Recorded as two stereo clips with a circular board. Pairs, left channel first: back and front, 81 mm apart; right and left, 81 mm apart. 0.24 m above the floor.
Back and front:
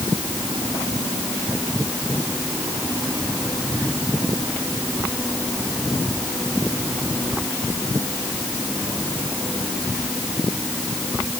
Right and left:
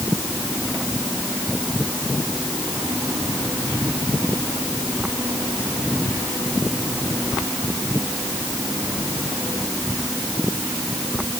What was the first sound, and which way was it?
Only background noise.